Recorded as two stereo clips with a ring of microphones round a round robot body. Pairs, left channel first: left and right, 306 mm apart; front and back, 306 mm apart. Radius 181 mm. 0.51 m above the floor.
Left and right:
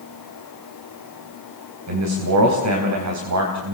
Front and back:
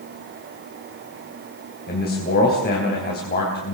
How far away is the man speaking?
About 4 m.